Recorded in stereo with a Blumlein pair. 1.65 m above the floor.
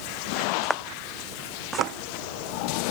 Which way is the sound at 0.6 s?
Straight ahead.